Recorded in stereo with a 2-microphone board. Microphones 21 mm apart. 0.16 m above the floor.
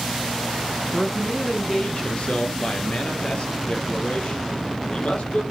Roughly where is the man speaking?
Centre.